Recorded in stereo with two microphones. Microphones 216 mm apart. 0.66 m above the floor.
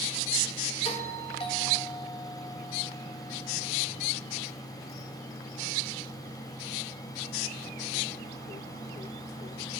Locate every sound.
0.8 s a doorbell: 25° left (ahead or behind), 2 m